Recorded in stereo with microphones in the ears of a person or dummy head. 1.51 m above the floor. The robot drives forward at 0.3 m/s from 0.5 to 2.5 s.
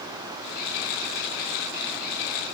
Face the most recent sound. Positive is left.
No sound to turn to.